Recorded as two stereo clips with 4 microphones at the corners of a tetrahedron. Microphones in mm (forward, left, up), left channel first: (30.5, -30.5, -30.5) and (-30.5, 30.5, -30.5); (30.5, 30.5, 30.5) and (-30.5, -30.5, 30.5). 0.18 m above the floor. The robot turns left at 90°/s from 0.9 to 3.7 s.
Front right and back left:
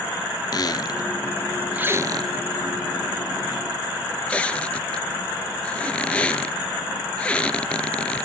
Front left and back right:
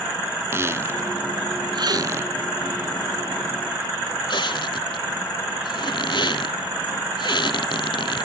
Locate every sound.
0.5 s a squeak: 80° right, 0.9 m; by 8.2 s 30° left, 0.9 m